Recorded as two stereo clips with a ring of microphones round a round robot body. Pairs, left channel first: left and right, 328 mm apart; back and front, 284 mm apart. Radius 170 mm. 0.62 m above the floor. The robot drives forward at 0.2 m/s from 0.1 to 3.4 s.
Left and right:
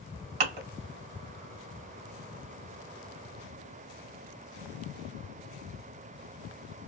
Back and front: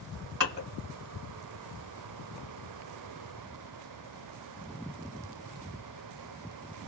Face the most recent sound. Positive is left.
turn(degrees=-95)